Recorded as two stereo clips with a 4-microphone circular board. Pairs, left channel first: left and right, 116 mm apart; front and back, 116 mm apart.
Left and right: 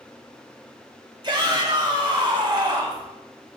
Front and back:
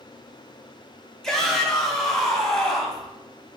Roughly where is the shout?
Right.